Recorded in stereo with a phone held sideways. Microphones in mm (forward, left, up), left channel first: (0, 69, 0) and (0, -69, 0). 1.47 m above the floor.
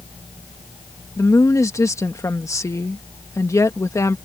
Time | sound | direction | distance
1.2 | a woman speaking | 20° left (ahead or behind) | ?